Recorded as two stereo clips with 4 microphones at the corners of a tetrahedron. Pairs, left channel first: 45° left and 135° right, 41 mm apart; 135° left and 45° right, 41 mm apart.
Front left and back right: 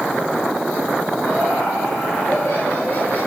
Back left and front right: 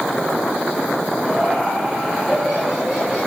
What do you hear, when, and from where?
1.2 s laughter: 35° left, 7 m; by 3.2 s 30° left, 8.5 m